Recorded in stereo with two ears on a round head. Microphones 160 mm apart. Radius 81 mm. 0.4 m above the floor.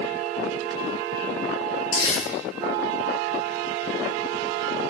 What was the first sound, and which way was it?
Crumpling, 25° left (ahead or behind).